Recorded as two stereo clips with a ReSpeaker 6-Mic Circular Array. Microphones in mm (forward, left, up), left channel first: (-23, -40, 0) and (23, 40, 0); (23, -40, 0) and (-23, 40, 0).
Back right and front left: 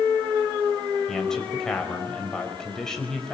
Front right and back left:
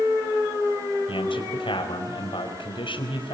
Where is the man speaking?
35° right, 4.5 m.